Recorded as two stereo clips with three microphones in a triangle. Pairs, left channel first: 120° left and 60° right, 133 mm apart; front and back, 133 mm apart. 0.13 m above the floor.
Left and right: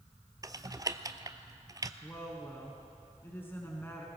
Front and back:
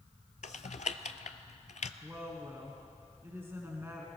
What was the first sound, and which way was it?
Typing on a keyboard, straight ahead.